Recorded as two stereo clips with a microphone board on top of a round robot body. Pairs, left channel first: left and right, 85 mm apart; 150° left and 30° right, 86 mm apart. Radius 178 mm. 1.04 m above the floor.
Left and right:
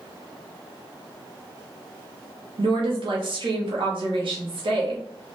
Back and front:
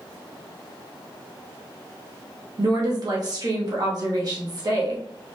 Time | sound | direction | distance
2.6 | a woman speaking | 70° right | 1.9 m